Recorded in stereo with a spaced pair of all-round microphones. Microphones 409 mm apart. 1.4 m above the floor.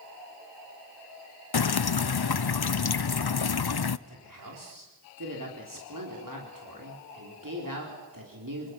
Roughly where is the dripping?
Left.